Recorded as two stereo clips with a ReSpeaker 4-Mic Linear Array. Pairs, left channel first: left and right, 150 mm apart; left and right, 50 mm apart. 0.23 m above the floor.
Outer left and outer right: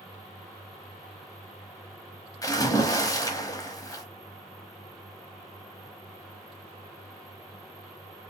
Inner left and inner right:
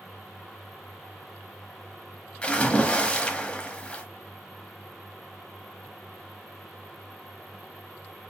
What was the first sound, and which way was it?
A splash, 25° left (ahead or behind).